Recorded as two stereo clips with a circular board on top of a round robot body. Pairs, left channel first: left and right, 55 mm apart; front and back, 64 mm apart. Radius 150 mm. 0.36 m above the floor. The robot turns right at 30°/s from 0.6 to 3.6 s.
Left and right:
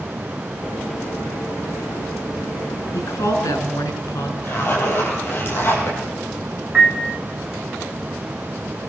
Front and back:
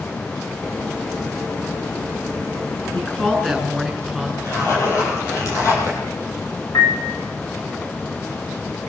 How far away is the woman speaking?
About 6.5 m.